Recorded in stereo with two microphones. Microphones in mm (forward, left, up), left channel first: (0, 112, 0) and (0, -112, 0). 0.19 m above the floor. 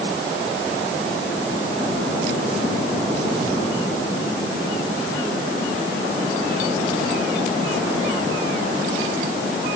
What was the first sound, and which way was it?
Only background noise.